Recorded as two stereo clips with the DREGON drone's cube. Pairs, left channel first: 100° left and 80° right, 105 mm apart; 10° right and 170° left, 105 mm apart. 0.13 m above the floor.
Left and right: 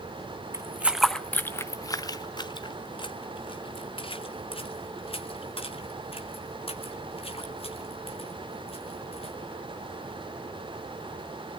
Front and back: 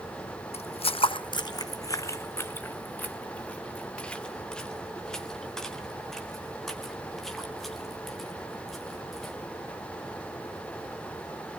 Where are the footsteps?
15° right, 0.5 m; by 9.3 s 80° left, 4.5 m.